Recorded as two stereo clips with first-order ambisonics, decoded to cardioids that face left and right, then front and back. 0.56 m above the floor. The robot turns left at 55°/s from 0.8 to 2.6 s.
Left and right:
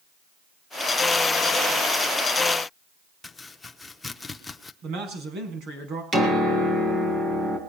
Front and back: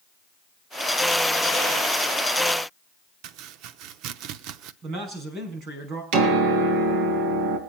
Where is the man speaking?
130° right, 5.5 m.